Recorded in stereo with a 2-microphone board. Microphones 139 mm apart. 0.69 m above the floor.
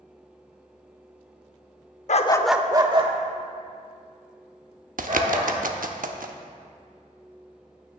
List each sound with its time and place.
2.1 s a dog barking: 60° left (ahead or behind), 0.6 m; by 5.5 s 60° right (ahead or behind), 4.5 m
5.0 s a bird: 80° right, 0.8 m